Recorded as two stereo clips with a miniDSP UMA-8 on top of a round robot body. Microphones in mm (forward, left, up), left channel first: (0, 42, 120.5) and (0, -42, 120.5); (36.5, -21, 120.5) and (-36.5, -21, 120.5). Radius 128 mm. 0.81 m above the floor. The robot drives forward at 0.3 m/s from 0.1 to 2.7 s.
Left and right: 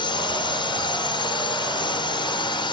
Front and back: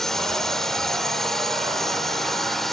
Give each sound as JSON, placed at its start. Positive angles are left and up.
{"t": 0.0, "sound": "a drone", "azimuth_deg": 85}